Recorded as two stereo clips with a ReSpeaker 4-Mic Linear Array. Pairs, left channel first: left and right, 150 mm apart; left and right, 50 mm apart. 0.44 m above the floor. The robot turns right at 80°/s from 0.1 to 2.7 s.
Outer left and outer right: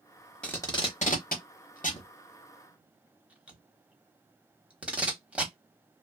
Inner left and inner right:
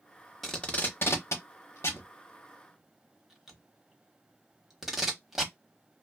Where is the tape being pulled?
5° left (ahead or behind), 0.8 m; by 5.5 s 10° right (ahead or behind), 0.8 m.